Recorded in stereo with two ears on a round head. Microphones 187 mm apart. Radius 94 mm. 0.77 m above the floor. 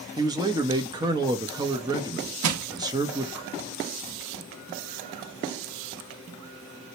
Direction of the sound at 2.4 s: 75° right (ahead or behind).